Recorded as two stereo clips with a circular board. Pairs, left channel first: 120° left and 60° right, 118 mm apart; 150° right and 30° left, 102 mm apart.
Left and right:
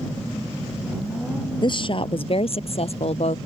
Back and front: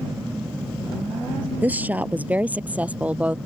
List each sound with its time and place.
1.6 s a woman speaking: 100° left; by 3.4 s 105° left